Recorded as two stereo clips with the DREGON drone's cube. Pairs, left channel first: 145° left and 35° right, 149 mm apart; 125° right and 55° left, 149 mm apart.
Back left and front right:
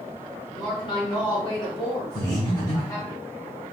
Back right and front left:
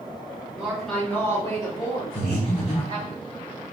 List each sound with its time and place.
0.5 s a woman speaking: 125° left, 1.1 m; by 3.1 s 150° right, 2 m
2.1 s breathing: 160° right, 1.2 m